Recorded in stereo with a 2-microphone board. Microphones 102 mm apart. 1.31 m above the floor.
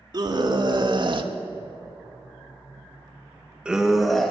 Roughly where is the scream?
Right.